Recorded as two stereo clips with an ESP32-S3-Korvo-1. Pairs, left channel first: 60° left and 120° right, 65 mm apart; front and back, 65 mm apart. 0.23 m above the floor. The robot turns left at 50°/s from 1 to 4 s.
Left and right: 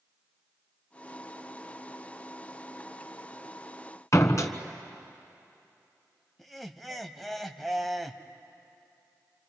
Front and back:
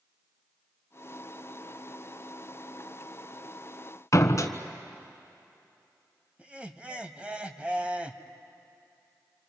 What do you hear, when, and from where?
4.1 s a door slam: 30° left, 1.3 m
6.4 s laughter: 150° left, 1.1 m